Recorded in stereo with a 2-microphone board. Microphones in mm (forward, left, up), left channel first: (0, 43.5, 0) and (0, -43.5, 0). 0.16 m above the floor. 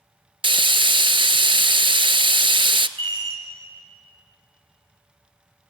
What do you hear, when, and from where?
0.4 s frying: 70° right (ahead or behind), 0.6 m
3.0 s a chime: 65° right (ahead or behind), 5.5 m